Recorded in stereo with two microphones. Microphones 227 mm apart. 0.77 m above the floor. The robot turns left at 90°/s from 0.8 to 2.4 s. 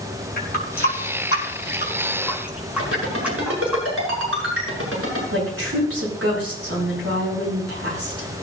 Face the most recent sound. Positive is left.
turn(degrees=-80)